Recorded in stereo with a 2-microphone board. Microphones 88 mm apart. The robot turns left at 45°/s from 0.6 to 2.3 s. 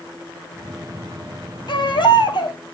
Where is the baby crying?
65° left (ahead or behind), 2 m; by 2.6 s 60° left (ahead or behind), 2 m.